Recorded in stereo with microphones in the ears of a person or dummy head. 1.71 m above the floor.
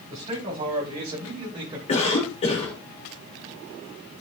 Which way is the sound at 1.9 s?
35° left (ahead or behind).